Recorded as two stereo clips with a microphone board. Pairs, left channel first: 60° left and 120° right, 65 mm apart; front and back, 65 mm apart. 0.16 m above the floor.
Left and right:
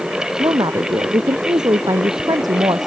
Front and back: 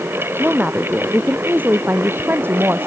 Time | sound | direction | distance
0.4 | a woman speaking | 115° right | ?